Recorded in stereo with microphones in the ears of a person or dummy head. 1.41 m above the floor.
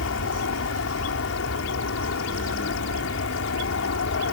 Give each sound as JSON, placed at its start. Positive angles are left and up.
{"t": 0.0, "sound": "an aircraft", "side_deg": 65}